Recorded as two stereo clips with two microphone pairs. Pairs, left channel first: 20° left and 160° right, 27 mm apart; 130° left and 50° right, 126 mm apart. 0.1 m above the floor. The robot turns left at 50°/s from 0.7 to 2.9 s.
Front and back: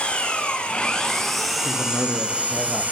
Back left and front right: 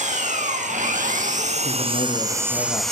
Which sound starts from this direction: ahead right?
An engine running, at 0.0 s.